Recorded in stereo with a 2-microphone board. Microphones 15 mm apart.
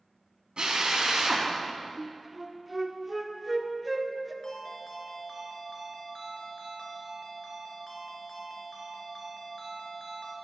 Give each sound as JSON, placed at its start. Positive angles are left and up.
{"t": 0.6, "sound": "a drill", "side_deg": -75, "distance_m": 3.5}
{"t": 2.0, "sound": "a flute", "side_deg": -10, "distance_m": 1.3}
{"t": 4.4, "sound": "a ringtone", "side_deg": 55, "distance_m": 3.0}